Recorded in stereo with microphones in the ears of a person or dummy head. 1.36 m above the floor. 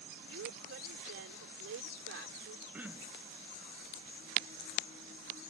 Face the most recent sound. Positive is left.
turn(degrees=-10)  # may be behind; listen again after turning